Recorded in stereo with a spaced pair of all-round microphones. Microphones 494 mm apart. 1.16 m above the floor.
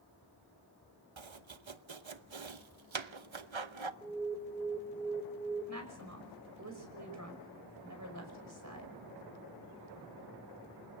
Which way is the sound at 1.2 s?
65° right (ahead or behind).